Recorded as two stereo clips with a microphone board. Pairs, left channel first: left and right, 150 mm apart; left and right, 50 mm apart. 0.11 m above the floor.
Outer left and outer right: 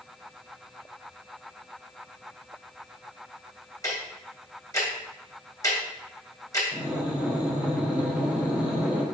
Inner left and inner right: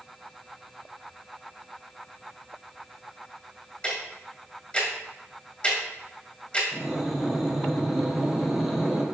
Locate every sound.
3.8 s ticking: 20° left (ahead or behind), 3 m
6.7 s breathing: 10° right (ahead or behind), 2.0 m